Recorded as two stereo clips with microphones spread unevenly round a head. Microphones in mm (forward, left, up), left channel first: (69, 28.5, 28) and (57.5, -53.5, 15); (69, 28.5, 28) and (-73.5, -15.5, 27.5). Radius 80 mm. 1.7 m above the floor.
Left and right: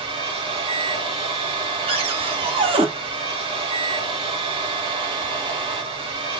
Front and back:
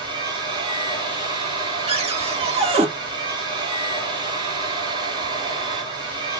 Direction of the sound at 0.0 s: 100° right.